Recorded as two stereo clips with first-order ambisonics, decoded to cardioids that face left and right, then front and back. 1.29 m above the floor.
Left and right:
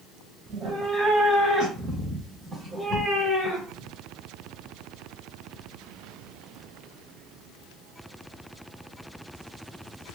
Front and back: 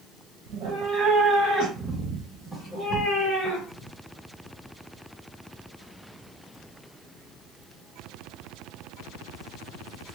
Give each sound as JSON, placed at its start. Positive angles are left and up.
{"t": 0.5, "sound": "a cat meowing", "azimuth_deg": -155, "distance_m": 1.6}